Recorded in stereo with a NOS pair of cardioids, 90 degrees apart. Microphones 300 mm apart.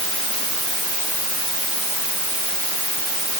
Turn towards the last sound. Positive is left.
No sound to turn to.